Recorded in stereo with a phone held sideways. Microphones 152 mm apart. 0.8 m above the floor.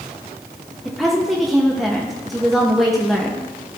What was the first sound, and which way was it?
A woman speaking, centre (ahead or behind).